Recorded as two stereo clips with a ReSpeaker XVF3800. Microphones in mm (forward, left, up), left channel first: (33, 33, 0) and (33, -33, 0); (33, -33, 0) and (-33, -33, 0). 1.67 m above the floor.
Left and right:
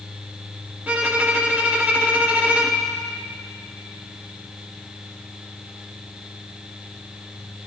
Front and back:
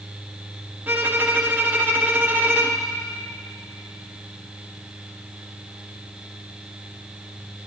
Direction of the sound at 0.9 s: 140° right.